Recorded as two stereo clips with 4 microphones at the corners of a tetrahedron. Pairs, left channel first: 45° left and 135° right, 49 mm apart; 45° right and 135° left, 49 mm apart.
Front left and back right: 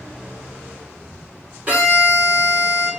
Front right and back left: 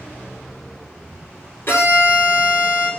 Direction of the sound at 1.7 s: 80° right.